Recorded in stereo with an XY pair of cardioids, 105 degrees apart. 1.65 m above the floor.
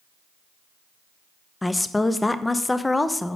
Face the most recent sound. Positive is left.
turn(degrees=15)